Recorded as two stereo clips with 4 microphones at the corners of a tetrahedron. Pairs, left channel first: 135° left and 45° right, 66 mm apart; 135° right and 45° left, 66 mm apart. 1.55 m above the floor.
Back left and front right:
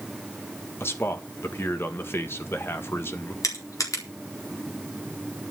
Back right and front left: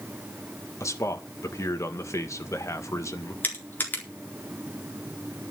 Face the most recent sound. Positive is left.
turn(degrees=165)